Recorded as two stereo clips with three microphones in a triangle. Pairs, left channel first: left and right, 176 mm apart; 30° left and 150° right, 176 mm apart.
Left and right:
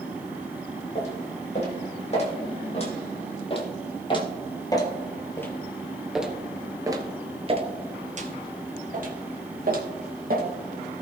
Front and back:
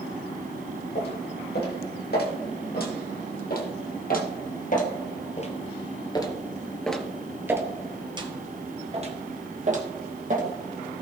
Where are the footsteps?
45° left, 3.5 m; by 10.5 s 115° right, 2.5 m.